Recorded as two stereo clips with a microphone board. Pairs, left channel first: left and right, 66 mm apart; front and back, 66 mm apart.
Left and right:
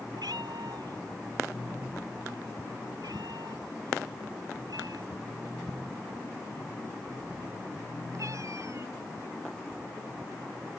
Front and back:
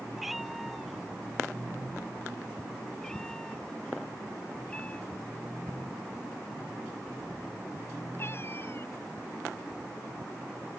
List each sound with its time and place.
0.2 s a cat meowing: 90° right; by 9.0 s 50° right